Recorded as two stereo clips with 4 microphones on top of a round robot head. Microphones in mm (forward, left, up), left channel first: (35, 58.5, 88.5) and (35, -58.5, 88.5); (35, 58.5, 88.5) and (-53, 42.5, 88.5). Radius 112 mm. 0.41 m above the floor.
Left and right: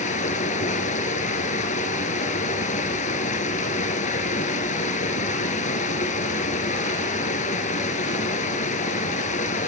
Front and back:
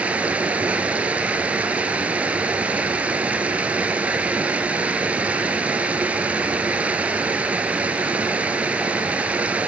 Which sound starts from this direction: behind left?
Running water, at 0.0 s.